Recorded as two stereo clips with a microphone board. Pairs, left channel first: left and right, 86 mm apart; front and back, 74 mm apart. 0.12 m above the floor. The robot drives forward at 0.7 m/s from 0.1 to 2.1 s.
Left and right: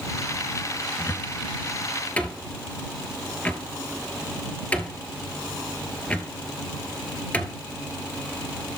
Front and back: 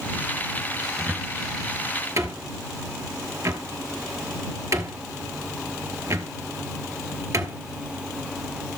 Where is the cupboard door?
110° left, 0.8 m; by 7.6 s 160° left, 1.2 m.